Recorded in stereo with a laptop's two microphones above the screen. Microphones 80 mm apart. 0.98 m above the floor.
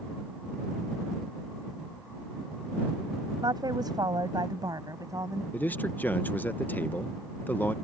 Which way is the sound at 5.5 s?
20° left (ahead or behind).